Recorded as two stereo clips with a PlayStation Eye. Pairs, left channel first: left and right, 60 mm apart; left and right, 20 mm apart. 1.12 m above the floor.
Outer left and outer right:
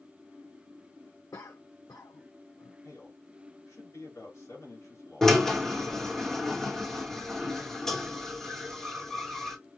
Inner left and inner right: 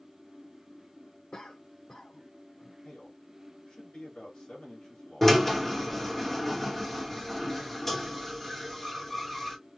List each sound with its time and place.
1.3 s a cough: 75° left (ahead or behind), 0.6 m
2.8 s a man speaking: 70° left (ahead or behind), 2.5 m
5.2 s a drill: 10° left (ahead or behind), 1.0 m